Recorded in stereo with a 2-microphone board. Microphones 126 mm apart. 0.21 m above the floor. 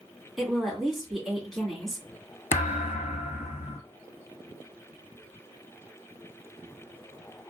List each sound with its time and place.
0.4 s a woman speaking: centre (ahead or behind), 2 m
2.5 s a thud: 80° left, 0.5 m